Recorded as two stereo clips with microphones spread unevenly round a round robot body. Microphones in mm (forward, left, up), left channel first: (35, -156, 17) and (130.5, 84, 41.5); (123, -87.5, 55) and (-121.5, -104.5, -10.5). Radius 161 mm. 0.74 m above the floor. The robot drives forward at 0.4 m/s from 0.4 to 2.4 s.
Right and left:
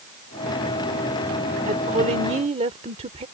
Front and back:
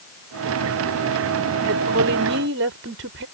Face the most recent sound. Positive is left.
turn(degrees=140)